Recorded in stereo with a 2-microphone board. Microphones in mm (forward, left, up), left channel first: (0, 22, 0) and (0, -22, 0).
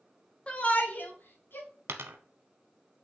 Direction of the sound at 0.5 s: 25° left (ahead or behind).